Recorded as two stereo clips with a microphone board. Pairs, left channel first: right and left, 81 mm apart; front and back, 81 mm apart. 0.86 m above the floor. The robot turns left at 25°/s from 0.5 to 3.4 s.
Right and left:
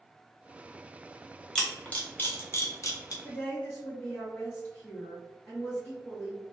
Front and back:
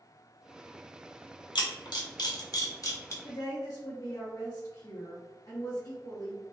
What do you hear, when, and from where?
1.6 s a camera shutter: 10° right, 0.6 m; by 3.1 s 50° right, 0.6 m
3.2 s a woman speaking: 30° right, 0.8 m